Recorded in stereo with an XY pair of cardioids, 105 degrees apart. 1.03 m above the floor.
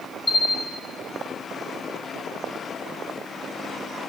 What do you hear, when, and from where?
0.3 s a bell: 30° left, 3.5 m